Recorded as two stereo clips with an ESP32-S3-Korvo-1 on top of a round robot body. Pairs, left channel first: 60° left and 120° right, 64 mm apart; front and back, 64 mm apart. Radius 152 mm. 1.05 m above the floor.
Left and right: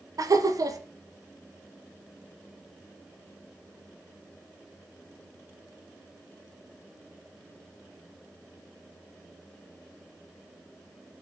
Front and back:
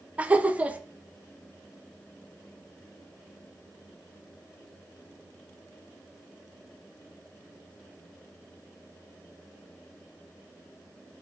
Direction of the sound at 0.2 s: 110° right.